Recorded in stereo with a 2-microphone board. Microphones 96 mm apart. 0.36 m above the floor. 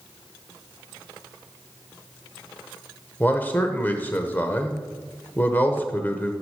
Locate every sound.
3.2 s a man speaking: 20° left (ahead or behind), 0.8 m